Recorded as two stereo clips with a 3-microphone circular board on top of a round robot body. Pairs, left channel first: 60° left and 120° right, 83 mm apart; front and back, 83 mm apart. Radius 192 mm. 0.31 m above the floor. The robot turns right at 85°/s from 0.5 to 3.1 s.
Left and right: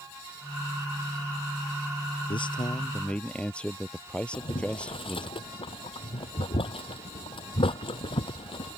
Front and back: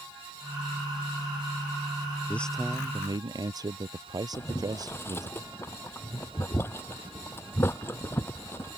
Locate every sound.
2.3 s a man speaking: 70° left; by 5.3 s 140° left
4.3 s boiling: 65° left